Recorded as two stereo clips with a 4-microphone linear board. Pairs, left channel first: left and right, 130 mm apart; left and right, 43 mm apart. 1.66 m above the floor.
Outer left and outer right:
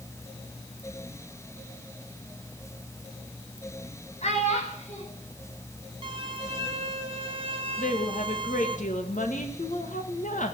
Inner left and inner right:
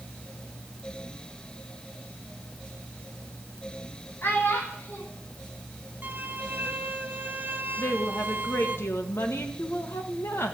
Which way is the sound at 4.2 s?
55° left (ahead or behind).